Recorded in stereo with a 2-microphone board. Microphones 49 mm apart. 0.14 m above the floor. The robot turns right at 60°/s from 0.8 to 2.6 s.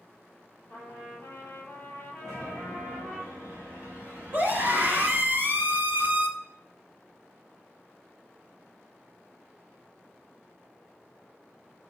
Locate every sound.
0.7 s a trumpet: 75° left, 3.5 m; by 3.2 s 175° right, 3.5 m
2.2 s a chime: 5° right (ahead or behind), 3.5 m; by 5.3 s 30° right (ahead or behind), 3.5 m
4.3 s a scream: 40° right (ahead or behind), 2 m